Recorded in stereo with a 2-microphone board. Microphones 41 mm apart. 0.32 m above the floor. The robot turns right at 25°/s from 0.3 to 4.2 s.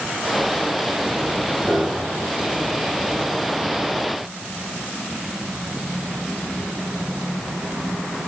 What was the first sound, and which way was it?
A piano, 50° right (ahead or behind).